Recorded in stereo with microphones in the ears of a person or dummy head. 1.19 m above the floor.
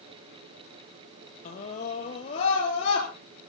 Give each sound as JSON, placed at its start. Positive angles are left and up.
{"t": 1.4, "sound": "a scream", "side_deg": 50, "distance_m": 1.5}